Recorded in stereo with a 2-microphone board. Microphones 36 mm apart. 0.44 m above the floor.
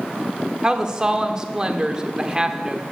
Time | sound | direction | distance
0.6 | a woman speaking | 20° right (ahead or behind) | 0.9 m